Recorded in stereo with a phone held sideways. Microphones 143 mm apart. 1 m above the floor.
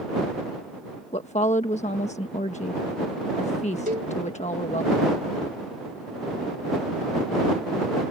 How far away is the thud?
No thud in this recording.